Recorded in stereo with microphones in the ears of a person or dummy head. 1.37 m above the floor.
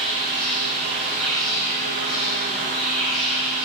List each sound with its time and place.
0.0 s an insect: 5° right (ahead or behind), 1.3 m